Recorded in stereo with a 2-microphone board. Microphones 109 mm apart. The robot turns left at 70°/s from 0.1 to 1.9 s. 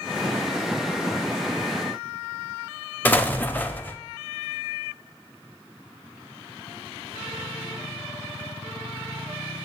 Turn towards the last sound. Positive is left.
turn(degrees=15)  # may be behind; listen again after turning